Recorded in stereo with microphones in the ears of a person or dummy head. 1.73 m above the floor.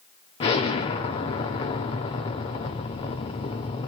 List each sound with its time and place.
0.4 s an explosion: 30° left (ahead or behind), 0.7 m